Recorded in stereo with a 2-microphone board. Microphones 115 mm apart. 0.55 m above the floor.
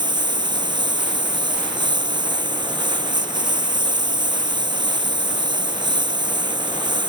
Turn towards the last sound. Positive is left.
turn(degrees=-40)  # may be behind; listen again after turning